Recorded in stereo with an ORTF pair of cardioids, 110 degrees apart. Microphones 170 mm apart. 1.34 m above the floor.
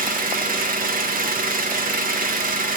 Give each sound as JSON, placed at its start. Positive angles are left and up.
{"t": 0.0, "sound": "an engine running", "azimuth_deg": -60, "distance_m": 1.3}